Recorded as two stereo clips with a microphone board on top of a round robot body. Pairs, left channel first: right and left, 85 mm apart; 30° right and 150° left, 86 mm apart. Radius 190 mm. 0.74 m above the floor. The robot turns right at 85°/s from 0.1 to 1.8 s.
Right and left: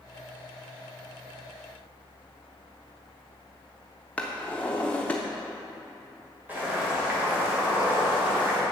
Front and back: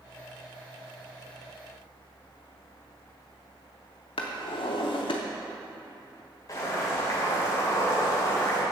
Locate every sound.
4.2 s a drawer: 15° right, 0.7 m
6.5 s boiling: 20° left, 3 m